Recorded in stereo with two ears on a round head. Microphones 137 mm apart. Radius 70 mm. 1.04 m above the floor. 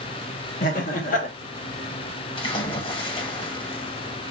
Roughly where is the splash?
Left.